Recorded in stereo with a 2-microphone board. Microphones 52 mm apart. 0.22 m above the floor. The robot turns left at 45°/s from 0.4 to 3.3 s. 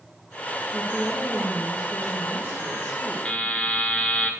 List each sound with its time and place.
0.7 s a woman speaking: 40° right, 2.5 m; by 3.1 s 150° right, 2.5 m
3.2 s a buzzer: 20° left (ahead or behind), 0.7 m; by 4.3 s 25° left (ahead or behind), 0.7 m